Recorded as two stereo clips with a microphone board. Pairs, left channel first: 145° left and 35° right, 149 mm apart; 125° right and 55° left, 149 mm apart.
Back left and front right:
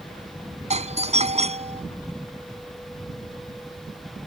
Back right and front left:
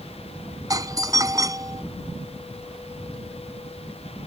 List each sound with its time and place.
0.7 s a doorbell: 5° right